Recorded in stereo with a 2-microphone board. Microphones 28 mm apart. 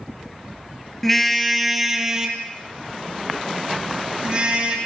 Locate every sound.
1.0 s a car horn: 5° left (ahead or behind), 2.5 m; by 4.8 s 35° right (ahead or behind), 6.5 m